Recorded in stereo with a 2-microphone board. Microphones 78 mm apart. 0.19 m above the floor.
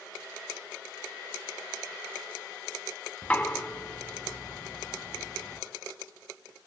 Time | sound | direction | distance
3.2 | knocking | 20° left (ahead or behind) | 1.3 m